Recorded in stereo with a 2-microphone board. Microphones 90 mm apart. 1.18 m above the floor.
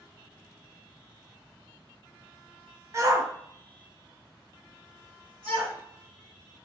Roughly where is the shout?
Right.